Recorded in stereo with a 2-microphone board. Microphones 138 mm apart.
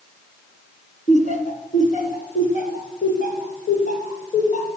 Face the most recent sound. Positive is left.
turn(degrees=60)  # may be behind; listen again after turning